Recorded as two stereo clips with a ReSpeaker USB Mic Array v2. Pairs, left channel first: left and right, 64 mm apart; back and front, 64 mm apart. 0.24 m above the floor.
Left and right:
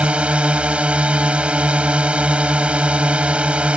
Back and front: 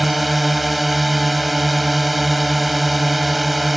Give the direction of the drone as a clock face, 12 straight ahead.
3 o'clock.